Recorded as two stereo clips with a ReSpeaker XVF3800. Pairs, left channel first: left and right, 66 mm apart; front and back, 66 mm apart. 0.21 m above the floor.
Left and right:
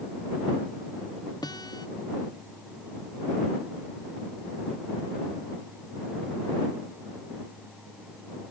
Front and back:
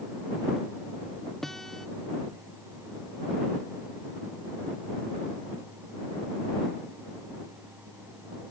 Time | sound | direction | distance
1.4 | a guitar | 85° left | ?